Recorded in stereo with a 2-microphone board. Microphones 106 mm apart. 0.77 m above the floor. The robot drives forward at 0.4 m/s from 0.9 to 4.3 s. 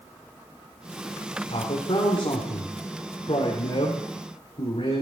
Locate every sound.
1.5 s a man speaking: 65° left (ahead or behind), 3 m